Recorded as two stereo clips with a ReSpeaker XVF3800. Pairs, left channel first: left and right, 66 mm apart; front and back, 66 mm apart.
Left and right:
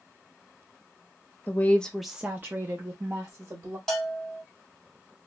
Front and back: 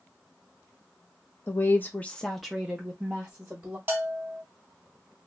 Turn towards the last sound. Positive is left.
turn(degrees=165)